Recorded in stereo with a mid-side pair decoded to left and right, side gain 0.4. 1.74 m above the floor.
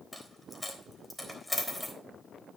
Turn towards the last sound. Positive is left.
turn(degrees=5)